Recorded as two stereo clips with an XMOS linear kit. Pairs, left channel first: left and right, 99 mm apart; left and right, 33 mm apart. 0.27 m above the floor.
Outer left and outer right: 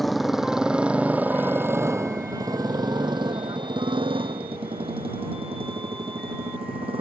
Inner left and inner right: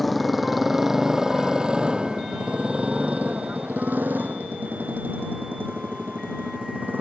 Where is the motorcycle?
Centre (ahead or behind); by 7.0 s 80° right.